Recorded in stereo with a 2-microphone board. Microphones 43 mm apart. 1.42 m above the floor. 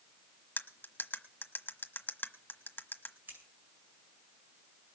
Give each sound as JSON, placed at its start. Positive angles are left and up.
{"t": 0.6, "sound": "cutlery clinking", "side_deg": 50, "distance_m": 1.2}
{"t": 3.3, "sound": "scissors", "side_deg": -55, "distance_m": 9.0}